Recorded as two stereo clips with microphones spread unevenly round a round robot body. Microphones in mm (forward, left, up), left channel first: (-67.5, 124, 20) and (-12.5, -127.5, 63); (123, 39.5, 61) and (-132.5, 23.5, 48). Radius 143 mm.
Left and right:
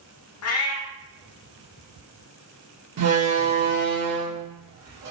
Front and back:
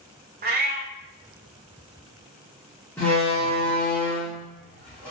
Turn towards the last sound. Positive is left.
turn(degrees=-80)